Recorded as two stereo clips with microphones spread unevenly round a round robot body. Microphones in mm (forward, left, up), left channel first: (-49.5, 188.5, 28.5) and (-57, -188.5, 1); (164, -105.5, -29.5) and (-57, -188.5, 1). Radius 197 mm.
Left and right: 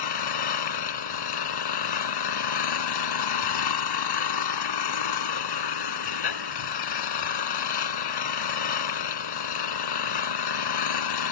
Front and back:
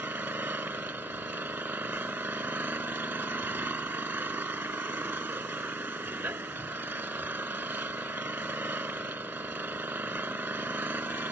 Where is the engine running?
115° left.